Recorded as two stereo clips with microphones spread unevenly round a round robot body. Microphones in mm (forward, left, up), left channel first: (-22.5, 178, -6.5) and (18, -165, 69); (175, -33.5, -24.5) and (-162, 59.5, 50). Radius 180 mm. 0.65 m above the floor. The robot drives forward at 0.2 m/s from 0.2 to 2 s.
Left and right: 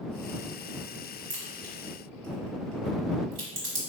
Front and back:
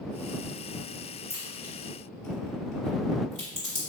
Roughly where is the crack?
Right.